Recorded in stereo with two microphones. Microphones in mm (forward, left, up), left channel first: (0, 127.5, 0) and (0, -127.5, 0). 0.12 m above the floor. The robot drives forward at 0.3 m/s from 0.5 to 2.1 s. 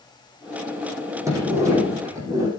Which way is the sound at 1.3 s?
10° right (ahead or behind).